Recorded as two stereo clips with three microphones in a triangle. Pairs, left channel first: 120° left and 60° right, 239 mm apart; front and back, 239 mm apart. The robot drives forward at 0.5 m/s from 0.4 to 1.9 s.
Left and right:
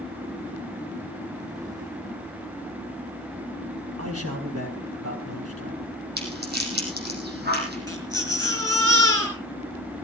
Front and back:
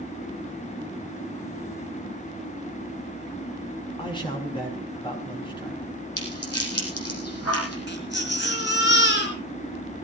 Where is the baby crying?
40° left, 5 m.